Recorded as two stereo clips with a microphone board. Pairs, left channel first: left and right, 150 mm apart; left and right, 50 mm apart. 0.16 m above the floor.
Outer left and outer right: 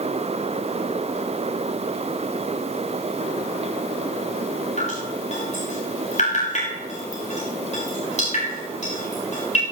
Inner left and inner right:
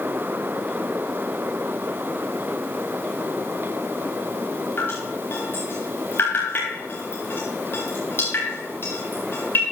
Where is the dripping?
50° left (ahead or behind), 6 m.